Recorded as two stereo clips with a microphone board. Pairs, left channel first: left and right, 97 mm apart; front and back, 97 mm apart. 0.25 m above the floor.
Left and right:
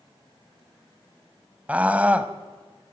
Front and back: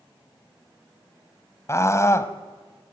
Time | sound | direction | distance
1.7 | a scream | 25° right | 1.4 m